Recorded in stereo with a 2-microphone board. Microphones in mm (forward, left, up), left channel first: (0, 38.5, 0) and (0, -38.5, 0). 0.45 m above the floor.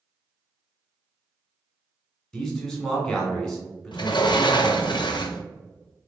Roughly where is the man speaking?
Centre.